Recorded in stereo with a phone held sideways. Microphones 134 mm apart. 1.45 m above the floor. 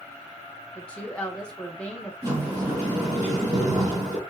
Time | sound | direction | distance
0.8 | a woman speaking | 10° left (ahead or behind) | 0.9 m
2.2 | a sliding door | 30° right (ahead or behind) | 1.9 m